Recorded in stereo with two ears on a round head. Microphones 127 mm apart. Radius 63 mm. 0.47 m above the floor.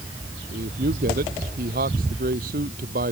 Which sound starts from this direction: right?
A man speaking, at 0.5 s.